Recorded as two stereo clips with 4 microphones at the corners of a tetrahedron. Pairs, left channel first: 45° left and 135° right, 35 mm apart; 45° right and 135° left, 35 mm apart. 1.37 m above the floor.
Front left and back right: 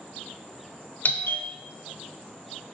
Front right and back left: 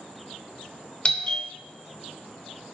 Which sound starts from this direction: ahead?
A doorbell, at 1.1 s.